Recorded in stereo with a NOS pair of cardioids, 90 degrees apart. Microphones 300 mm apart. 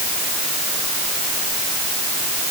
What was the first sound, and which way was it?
Only background noise.